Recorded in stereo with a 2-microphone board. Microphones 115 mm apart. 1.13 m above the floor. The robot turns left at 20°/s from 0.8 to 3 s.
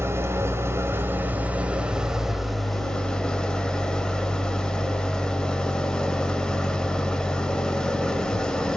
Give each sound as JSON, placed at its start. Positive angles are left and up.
{"t": 0.0, "sound": "an engine running", "azimuth_deg": -145, "distance_m": 1.1}